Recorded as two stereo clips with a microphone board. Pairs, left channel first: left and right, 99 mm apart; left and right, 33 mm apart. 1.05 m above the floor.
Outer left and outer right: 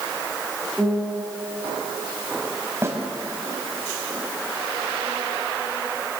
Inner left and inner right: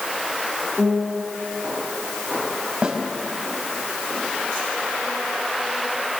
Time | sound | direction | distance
0.8 | a piano | 5° right (ahead or behind) | 6.5 m
2.8 | a snare drum | 25° right (ahead or behind) | 4.5 m